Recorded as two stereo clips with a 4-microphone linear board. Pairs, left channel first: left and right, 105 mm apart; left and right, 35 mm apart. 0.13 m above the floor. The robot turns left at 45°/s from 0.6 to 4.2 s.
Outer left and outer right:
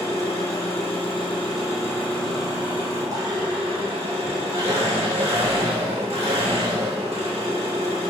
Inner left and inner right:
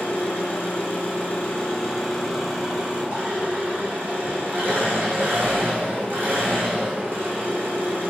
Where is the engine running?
80° left, 1.7 m; by 8.1 s 85° right, 1.7 m.